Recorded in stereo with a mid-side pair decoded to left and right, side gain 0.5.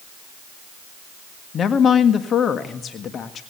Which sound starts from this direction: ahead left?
A woman speaking, at 1.5 s.